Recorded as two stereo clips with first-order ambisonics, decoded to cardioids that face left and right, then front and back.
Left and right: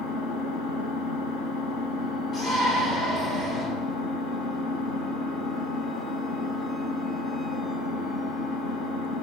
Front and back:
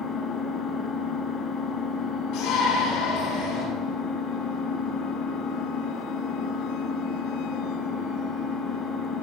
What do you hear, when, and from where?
0.0 s an engine running: 65° left, 1.8 m
2.3 s a shout: 40° left, 6.5 m